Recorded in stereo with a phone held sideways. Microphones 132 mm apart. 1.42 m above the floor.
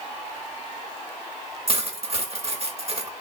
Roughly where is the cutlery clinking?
Right.